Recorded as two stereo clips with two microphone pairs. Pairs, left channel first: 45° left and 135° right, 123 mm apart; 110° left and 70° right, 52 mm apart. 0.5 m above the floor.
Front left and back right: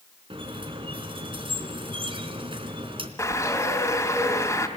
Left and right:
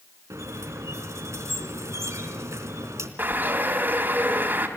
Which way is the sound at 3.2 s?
20° right.